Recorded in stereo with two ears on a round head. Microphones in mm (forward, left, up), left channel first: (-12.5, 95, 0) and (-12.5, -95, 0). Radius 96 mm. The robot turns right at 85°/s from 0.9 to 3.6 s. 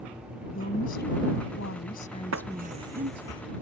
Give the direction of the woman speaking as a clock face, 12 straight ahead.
11 o'clock.